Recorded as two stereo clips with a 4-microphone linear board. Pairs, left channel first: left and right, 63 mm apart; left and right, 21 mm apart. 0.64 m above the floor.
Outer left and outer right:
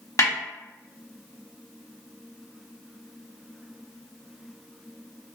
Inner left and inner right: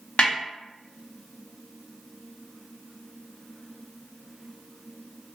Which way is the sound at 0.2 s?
60° left (ahead or behind).